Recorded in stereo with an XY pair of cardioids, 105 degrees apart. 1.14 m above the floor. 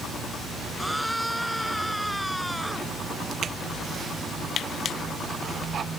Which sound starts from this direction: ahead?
A scream, at 0.8 s.